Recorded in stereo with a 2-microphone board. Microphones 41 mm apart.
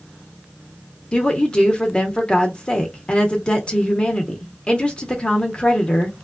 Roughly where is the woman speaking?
Left.